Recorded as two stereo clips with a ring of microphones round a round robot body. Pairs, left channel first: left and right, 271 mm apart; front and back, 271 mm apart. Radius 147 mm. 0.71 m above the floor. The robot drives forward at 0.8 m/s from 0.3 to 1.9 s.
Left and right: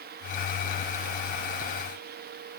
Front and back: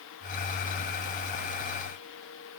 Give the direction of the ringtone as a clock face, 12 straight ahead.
I don't hear a ringtone.